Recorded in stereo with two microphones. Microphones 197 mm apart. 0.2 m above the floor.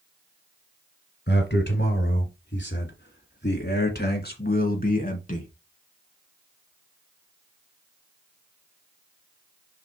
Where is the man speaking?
60° left (ahead or behind), 3 m; by 5.5 s 40° left (ahead or behind), 2 m.